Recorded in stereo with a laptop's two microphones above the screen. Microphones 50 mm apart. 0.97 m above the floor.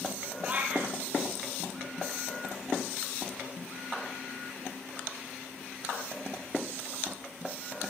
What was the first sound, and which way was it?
A cat meowing, 25° right (ahead or behind).